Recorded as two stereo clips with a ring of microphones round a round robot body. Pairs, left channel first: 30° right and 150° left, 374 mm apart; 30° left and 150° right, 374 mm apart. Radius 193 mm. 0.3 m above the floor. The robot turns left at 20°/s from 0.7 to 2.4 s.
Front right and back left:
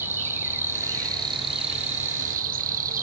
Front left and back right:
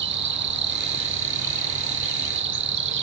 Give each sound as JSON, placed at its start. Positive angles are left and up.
{"t": 0.0, "sound": "an insect", "azimuth_deg": -130, "distance_m": 0.9}